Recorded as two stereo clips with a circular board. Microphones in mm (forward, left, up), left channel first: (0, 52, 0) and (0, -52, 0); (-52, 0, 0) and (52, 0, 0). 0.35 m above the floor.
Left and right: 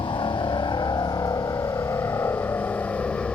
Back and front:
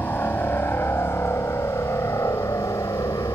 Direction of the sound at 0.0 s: 115° left.